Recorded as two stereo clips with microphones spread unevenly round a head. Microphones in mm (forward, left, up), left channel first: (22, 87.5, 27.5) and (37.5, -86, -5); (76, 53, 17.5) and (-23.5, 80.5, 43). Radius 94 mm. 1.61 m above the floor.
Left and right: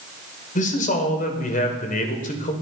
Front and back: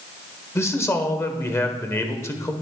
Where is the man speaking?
50° left, 1.3 m.